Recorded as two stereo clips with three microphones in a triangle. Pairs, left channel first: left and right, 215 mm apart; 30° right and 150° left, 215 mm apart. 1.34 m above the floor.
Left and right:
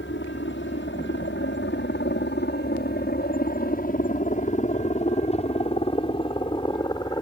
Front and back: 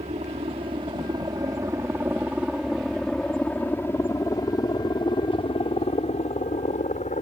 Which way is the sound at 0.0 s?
95° left.